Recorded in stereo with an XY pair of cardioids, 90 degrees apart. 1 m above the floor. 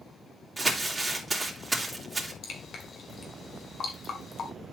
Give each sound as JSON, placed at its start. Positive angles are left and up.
{"t": 0.6, "sound": "crumpling", "azimuth_deg": -20, "distance_m": 3.0}
{"t": 2.4, "sound": "dripping", "azimuth_deg": 65, "distance_m": 1.7}